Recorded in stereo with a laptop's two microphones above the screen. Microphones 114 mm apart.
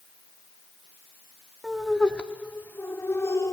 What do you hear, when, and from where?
1.6 s laughter: centre (ahead or behind), 2.5 m; by 3.5 s 25° left (ahead or behind), 3.5 m